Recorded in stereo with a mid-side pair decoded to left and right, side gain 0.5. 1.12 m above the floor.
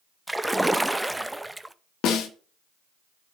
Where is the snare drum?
65° left, 1.8 m.